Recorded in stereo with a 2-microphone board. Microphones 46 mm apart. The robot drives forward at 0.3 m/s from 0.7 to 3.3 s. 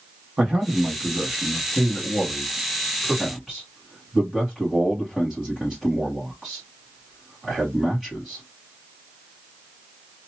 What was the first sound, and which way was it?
A man speaking, 20° right (ahead or behind).